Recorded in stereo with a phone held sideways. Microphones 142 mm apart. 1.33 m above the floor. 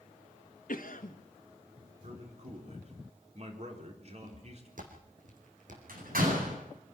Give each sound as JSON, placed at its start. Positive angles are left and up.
{"t": 0.7, "sound": "a cough", "side_deg": 70, "distance_m": 1.5}
{"t": 2.0, "sound": "a man speaking", "side_deg": -50, "distance_m": 4.0}
{"t": 4.2, "sound": "footsteps", "side_deg": -65, "distance_m": 3.0}
{"t": 5.9, "sound": "a door slam", "side_deg": -90, "distance_m": 9.5}